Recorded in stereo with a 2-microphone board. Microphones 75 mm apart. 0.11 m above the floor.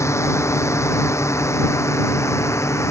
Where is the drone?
35° left (ahead or behind); by 2.9 s 40° left (ahead or behind).